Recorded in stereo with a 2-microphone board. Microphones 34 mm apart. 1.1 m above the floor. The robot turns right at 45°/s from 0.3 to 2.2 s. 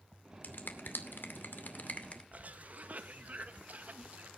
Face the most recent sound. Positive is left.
turn(degrees=-50)  # may be behind; listen again after turning